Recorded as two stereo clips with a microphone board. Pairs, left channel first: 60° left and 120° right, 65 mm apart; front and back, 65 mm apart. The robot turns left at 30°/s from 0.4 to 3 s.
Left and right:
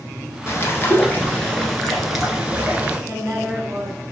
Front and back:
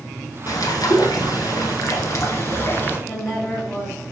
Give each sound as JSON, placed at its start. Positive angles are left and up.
{"t": 0.5, "sound": "a bird", "azimuth_deg": 15, "distance_m": 1.0}
{"t": 3.1, "sound": "a woman speaking", "azimuth_deg": -85, "distance_m": 1.7}